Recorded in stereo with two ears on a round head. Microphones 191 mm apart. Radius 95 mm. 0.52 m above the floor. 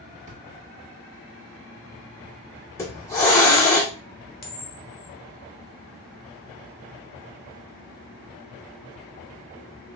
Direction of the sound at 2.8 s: 15° left (ahead or behind).